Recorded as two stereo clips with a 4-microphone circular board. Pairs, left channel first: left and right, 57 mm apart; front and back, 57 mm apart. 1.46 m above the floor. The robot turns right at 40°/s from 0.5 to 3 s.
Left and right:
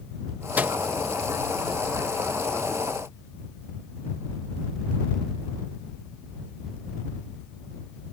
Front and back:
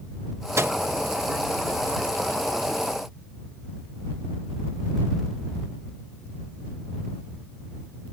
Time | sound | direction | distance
0.6 | a microwave | 150° right | ?